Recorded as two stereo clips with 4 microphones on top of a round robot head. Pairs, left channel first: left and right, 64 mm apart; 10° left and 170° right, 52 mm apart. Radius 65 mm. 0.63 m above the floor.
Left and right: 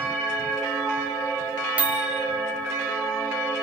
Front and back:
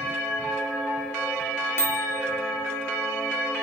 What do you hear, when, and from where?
1.8 s a microwave: 25° right, 1.3 m